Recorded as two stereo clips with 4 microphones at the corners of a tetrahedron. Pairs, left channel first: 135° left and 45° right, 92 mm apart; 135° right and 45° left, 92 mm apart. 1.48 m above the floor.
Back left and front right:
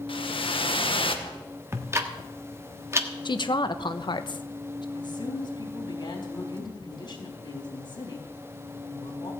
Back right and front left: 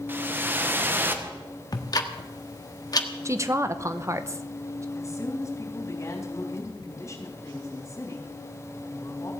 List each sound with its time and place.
0.1 s a whoosh: 115° left, 1.3 m
1.7 s ticking: 100° right, 1.3 m
3.2 s a woman speaking: 100° left, 1.0 m
5.0 s a woman speaking: 165° left, 3.5 m